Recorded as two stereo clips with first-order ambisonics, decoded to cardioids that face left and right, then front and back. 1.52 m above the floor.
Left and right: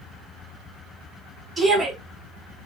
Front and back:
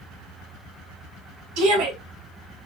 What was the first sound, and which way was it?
A shout, 165° right.